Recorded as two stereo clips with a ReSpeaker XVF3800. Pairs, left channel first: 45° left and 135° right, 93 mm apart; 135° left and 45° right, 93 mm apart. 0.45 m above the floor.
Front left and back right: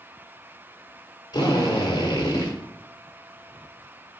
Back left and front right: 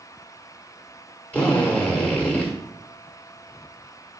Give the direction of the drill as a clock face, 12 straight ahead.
10 o'clock.